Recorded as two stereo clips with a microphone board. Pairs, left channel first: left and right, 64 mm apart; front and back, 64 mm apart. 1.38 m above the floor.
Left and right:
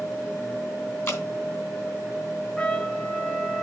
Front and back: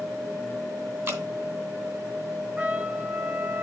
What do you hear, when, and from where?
1.1 s dripping: 135° left, 2 m
2.6 s a trumpet: 145° left, 0.8 m